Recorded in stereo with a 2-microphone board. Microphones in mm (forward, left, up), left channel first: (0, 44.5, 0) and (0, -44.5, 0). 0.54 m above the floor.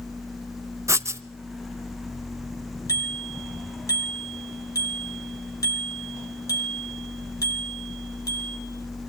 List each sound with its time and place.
0.9 s writing: 30° right (ahead or behind), 0.6 m
2.9 s a bicycle bell: 35° left (ahead or behind), 5.5 m